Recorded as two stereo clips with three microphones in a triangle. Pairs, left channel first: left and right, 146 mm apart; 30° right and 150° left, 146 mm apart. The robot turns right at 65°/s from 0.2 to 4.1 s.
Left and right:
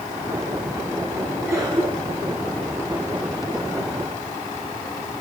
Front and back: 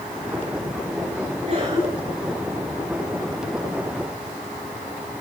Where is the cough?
Straight behind, 3.5 m; by 2.4 s 120° right, 3.5 m.